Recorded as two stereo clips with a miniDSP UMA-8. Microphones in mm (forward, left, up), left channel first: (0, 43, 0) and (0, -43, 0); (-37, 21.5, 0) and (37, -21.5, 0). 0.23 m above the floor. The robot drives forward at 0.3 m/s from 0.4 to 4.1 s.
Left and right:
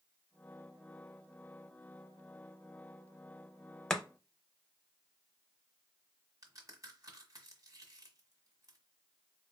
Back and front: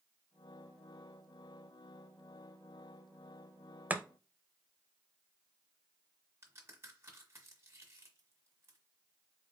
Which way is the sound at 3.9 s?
15° left.